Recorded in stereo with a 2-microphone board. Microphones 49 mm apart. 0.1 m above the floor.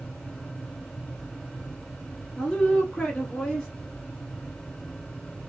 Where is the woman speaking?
15° left (ahead or behind), 2 m.